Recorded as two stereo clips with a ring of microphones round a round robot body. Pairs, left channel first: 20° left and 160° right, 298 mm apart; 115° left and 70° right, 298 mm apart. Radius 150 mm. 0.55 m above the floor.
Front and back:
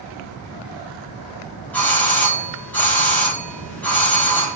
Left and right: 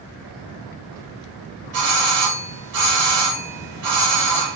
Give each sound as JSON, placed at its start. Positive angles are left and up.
{"t": 1.7, "sound": "a doorbell", "azimuth_deg": -60, "distance_m": 3.5}